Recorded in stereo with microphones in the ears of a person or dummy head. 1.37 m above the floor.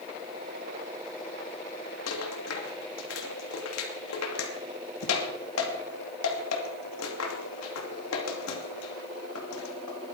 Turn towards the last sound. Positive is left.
turn(degrees=80)